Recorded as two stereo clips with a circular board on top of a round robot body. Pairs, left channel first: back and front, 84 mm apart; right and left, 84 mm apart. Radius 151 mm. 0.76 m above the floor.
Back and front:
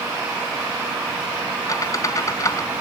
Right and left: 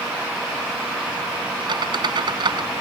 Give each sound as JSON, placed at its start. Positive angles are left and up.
{"t": 1.7, "sound": "a squeak", "azimuth_deg": 125}